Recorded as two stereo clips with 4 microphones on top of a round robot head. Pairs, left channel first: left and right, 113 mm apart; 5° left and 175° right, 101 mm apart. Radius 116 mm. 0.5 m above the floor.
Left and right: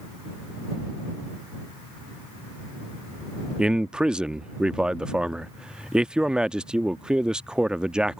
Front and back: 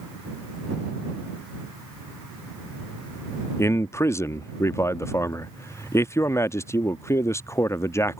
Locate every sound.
3.6 s a man speaking: 15° right